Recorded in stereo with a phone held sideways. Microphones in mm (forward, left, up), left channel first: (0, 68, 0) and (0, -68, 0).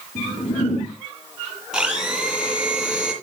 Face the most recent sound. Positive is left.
turn(degrees=-5)  # may be behind; listen again after turning